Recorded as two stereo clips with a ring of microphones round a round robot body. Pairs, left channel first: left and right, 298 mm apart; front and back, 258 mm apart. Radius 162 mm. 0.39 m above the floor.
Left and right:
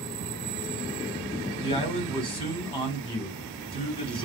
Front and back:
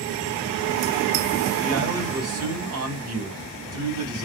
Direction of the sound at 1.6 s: 160° left.